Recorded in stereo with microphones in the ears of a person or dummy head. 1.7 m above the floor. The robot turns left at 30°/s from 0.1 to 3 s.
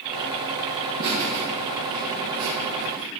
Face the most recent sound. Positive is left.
turn(degrees=-125)